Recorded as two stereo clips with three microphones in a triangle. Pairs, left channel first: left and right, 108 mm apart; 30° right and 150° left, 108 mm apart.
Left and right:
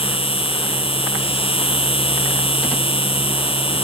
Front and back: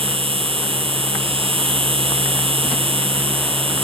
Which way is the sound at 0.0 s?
120° left.